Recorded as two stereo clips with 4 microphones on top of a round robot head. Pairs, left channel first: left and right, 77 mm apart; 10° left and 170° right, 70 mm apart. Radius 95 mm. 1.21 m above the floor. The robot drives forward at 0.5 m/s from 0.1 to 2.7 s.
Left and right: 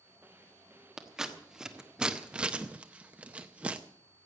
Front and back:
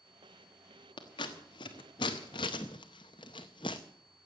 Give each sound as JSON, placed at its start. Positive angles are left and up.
{"t": 1.0, "sound": "scissors", "azimuth_deg": -5, "distance_m": 1.3}